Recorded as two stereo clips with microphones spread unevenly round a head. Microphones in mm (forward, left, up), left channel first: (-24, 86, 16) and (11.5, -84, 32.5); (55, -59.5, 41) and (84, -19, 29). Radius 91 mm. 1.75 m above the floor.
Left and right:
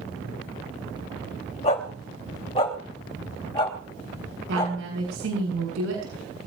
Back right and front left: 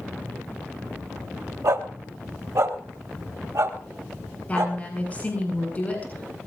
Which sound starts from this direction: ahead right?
A woman speaking, at 4.5 s.